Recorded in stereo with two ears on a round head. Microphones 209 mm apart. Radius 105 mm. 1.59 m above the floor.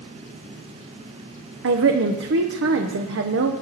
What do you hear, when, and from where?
1.6 s a woman speaking: 60° right (ahead or behind), 0.9 m